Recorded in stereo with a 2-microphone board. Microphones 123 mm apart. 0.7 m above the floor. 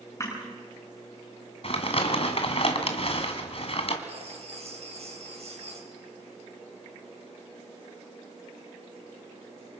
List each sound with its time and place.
0.2 s crushing: 25° left (ahead or behind), 9 m
1.6 s crumpling: 50° left (ahead or behind), 2 m
4.1 s writing: 60° right (ahead or behind), 3.5 m